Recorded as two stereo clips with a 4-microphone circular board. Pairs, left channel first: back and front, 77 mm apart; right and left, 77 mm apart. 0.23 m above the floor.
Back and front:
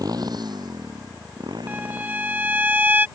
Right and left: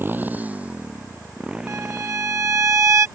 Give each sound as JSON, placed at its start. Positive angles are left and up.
{"t": 0.0, "sound": "a motorcycle", "azimuth_deg": 30}
{"t": 1.7, "sound": "a violin", "azimuth_deg": 55}